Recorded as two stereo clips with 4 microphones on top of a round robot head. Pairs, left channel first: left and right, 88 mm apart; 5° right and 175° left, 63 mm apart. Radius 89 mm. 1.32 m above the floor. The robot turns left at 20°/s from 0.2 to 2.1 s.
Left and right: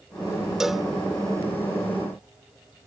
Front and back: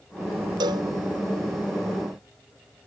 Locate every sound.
0.6 s a cowbell: 175° right; by 0.9 s straight behind